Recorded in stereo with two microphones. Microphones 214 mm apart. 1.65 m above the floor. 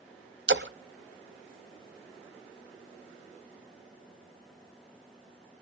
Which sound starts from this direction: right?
A splash, at 0.5 s.